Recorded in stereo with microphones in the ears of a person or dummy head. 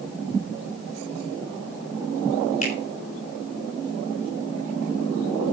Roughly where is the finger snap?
Left.